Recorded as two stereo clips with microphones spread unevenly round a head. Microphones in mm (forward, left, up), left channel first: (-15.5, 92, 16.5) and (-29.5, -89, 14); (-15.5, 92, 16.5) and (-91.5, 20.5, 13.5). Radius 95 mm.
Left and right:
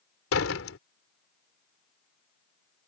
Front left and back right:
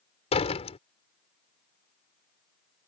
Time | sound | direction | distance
0.3 | a door slam | 60° left | ?